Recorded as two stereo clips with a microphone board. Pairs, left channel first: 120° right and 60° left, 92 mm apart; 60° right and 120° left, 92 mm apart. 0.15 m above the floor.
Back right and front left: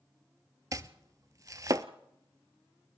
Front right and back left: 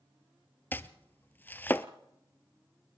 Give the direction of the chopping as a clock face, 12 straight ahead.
12 o'clock.